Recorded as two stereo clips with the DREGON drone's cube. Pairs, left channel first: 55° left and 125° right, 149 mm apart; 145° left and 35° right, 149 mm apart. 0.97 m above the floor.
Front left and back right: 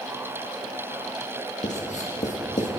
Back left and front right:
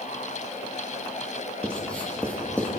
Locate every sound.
1.6 s writing: 65° left, 1.7 m